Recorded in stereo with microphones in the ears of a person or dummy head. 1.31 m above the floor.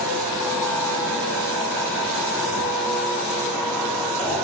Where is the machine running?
5° left (ahead or behind), 1.2 m.